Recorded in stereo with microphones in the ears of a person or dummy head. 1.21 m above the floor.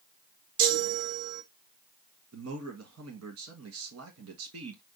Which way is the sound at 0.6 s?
75° right (ahead or behind).